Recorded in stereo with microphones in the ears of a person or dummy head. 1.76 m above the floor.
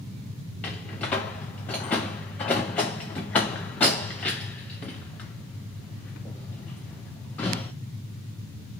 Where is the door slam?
10° left (ahead or behind), 0.5 m.